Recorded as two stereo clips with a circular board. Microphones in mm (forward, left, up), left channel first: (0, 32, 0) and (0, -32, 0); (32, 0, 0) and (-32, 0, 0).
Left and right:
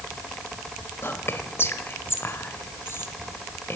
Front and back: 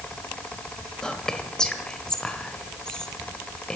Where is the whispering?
75° left, 1.4 m.